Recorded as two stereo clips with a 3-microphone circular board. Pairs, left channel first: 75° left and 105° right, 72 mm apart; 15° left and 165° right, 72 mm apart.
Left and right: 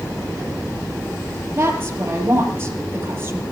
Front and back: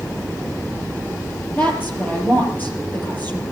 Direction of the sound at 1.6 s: 50° right.